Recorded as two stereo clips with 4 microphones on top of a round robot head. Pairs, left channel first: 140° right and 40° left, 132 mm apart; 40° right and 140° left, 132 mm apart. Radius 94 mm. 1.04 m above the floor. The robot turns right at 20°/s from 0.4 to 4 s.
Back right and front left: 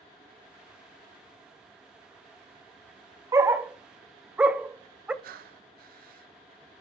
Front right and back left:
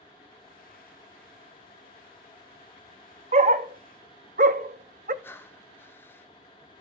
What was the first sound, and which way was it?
A dog barking, 110° left.